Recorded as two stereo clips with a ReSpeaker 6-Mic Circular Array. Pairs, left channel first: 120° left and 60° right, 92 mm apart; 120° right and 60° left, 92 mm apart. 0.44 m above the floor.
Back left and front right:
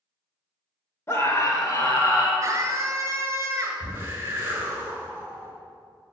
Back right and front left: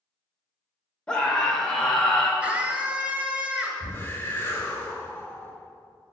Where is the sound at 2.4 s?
10° right, 2 m.